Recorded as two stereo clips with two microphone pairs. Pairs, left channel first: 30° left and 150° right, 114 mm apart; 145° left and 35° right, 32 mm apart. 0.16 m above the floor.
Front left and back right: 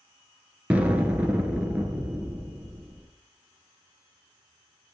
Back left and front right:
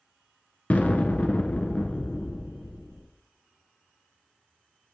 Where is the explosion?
135° left, 1.1 m.